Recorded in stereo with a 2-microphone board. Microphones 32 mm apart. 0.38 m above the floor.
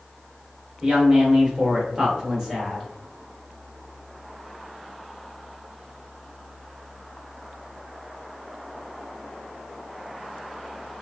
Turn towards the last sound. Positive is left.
turn(degrees=-5)  # may be behind; listen again after turning